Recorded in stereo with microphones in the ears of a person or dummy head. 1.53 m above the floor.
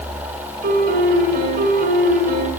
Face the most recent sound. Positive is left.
turn(degrees=-55)  # may be behind; listen again after turning